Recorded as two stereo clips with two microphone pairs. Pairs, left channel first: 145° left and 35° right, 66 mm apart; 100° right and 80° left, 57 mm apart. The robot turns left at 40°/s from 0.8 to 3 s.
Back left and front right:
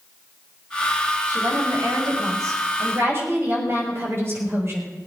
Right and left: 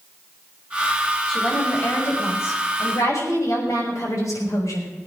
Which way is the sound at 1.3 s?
20° right.